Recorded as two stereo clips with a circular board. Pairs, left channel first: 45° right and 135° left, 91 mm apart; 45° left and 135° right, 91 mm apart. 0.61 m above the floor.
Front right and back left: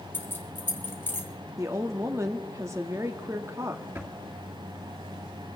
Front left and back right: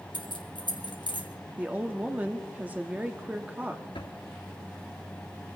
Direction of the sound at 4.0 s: 70° left.